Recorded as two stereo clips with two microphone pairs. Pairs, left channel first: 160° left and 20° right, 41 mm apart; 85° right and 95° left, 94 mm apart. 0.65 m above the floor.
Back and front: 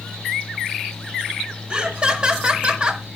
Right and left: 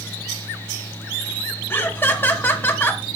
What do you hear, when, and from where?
1.7 s laughter: 50° right, 1.3 m